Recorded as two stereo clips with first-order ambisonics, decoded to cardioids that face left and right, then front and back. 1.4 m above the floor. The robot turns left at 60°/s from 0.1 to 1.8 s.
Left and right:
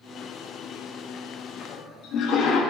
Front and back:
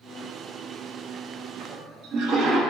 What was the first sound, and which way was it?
A toilet flushing, 150° left.